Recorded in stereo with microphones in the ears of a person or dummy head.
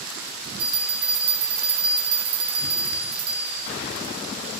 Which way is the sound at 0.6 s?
30° right (ahead or behind).